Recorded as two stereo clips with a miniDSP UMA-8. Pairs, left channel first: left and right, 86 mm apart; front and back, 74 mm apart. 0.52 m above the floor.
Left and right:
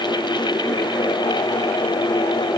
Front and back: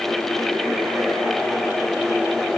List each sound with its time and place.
Only background noise.